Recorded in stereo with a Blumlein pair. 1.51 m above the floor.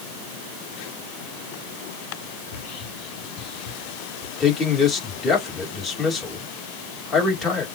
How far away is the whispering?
About 2 m.